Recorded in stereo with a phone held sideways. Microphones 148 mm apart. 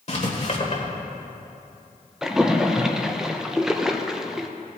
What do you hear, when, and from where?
0.1 s writing: 50° left (ahead or behind), 1.6 m
2.2 s a splash: 5° right (ahead or behind), 0.6 m